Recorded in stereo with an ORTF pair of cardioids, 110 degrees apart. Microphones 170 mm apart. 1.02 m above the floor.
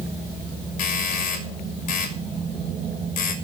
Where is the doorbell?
60° left, 6 m.